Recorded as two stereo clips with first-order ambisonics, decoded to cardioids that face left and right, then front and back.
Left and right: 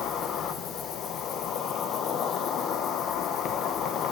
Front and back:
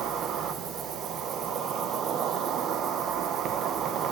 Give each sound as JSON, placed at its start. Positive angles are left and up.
{"t": 0.0, "sound": "an insect", "azimuth_deg": 135, "distance_m": 1.3}